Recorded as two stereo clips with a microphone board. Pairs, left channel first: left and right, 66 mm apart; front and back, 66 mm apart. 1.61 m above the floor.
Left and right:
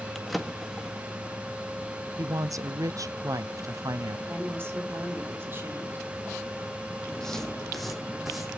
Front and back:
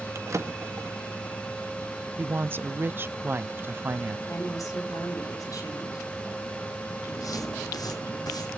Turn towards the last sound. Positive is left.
turn(degrees=0)